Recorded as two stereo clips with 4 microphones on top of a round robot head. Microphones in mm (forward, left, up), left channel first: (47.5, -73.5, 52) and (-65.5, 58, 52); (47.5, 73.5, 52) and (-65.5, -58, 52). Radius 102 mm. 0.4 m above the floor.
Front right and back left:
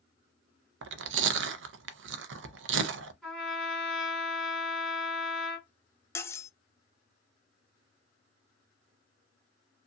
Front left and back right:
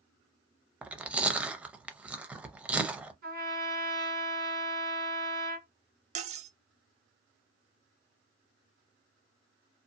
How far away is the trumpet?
About 1.8 m.